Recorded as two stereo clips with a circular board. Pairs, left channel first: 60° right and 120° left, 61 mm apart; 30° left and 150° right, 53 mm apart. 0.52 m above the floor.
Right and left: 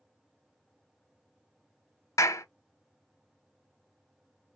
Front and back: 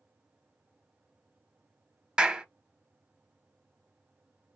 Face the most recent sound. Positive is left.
turn(degrees=-75)